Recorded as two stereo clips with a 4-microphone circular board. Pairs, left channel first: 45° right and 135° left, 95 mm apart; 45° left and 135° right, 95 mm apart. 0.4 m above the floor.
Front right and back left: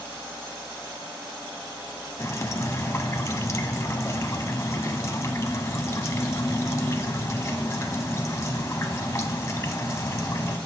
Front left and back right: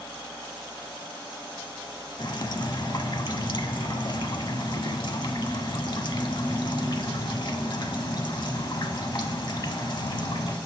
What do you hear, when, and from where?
2.2 s dripping: 10° left, 0.5 m